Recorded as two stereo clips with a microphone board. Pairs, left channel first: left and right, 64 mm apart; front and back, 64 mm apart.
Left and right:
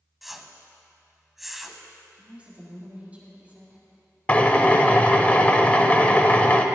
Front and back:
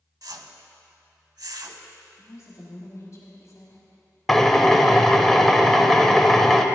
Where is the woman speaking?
30° right, 1.5 m.